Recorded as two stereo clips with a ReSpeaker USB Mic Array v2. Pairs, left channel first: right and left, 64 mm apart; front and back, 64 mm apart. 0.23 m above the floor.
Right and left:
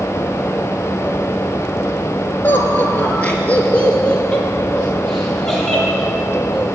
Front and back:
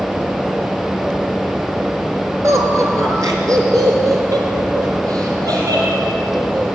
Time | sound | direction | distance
2.4 | laughter | 145° right | 4 m